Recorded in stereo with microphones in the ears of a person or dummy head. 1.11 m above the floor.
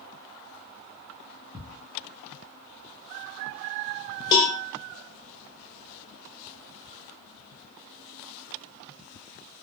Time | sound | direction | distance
1.5 | ticking | 20° right (ahead or behind) | 0.8 m
4.3 | a cowbell | 20° left (ahead or behind) | 0.6 m